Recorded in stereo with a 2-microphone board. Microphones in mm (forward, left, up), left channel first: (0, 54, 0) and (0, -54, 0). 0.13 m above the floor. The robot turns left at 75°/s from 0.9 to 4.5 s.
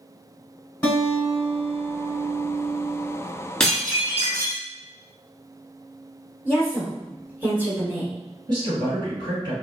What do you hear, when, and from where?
0.8 s a guitar: 40° left, 1.1 m; by 3.1 s 130° right, 1.1 m
3.6 s dishes clattering: 10° left, 1.1 m; by 4.6 s 60° right, 1.1 m
6.5 s a woman speaking: 10° right (ahead or behind), 1.3 m
8.5 s a woman speaking: 45° right (ahead or behind), 1.9 m